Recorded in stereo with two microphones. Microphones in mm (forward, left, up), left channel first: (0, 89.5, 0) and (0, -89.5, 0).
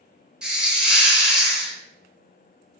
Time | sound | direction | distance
0.4 | a hiss | 5° right (ahead or behind) | 0.7 m